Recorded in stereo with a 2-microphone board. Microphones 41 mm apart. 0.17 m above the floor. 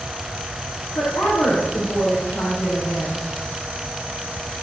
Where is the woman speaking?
70° left (ahead or behind), 6.5 m.